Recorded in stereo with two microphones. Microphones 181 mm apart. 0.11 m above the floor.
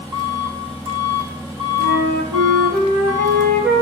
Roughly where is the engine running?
Right.